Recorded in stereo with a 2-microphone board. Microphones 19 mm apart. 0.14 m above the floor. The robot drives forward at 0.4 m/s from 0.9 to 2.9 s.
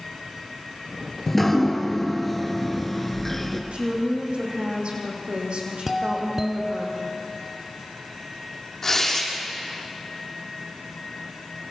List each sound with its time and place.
1.3 s dripping: 10° left (ahead or behind), 2.5 m
3.7 s a woman speaking: 75° right (ahead or behind), 6.5 m
5.9 s a doorbell: 20° right (ahead or behind), 1.6 m
8.8 s tearing paper: 20° left (ahead or behind), 6.5 m